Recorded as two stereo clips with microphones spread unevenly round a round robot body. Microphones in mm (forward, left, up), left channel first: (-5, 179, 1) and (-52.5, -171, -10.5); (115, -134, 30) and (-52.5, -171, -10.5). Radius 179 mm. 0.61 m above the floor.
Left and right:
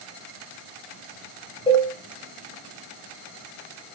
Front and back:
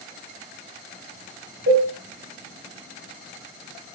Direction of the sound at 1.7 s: 160° left.